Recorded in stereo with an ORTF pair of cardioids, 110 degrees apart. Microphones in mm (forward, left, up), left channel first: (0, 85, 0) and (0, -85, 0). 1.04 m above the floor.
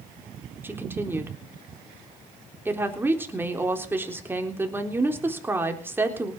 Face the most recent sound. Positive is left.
turn(degrees=-15)